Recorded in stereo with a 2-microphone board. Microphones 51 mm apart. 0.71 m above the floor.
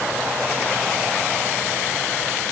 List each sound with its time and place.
Only background noise.